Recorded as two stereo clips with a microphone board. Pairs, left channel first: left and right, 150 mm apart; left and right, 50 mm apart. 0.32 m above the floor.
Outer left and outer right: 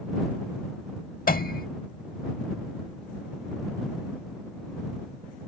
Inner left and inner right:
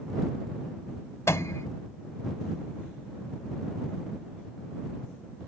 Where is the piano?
70° left (ahead or behind).